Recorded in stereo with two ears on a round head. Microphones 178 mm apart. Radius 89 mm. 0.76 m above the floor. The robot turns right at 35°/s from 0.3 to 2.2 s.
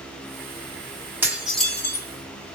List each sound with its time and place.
1.2 s dishes clattering: 10° right (ahead or behind), 1.0 m; by 2.1 s 15° left (ahead or behind), 1.0 m